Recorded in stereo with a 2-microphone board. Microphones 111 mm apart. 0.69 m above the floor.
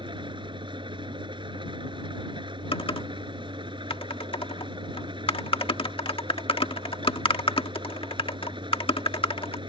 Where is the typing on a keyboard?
55° left (ahead or behind).